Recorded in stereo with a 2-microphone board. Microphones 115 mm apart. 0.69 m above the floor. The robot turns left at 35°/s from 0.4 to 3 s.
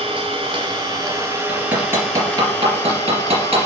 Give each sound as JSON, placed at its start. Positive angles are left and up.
{"t": 0.0, "sound": "an engine running", "azimuth_deg": -130, "distance_m": 2.5}
{"t": 1.5, "sound": "hammering", "side_deg": -5, "distance_m": 3.0}